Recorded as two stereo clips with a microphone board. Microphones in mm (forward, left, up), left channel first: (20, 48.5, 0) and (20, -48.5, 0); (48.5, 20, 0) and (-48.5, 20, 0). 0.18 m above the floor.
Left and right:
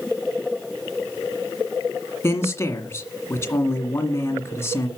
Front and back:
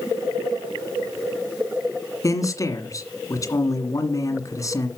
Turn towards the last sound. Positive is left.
turn(degrees=40)